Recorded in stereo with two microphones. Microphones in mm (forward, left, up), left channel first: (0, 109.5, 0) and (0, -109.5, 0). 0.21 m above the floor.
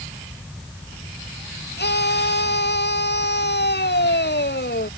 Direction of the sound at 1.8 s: 50° left (ahead or behind).